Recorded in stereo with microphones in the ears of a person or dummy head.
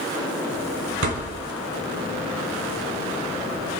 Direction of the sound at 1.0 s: 65° right (ahead or behind).